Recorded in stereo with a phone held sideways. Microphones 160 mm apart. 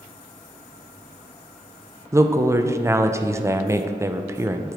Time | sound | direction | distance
2.1 | a woman speaking | 15° right (ahead or behind) | 0.5 m